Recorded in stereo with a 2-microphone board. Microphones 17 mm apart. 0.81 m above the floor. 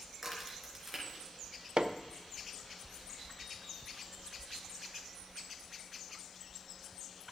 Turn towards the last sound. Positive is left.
turn(degrees=-65)  # may be behind; listen again after turning